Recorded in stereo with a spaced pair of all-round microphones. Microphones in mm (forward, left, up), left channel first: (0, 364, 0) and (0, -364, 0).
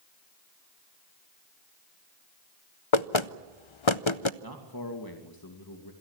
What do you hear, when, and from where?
2.9 s knocking: 45° left (ahead or behind), 0.6 m
4.4 s a man speaking: 30° left (ahead or behind), 2.5 m